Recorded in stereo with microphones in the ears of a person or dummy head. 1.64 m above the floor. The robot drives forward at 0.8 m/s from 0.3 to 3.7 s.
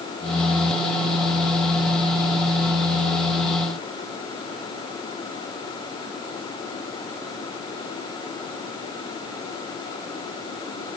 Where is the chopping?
I don't hear chopping.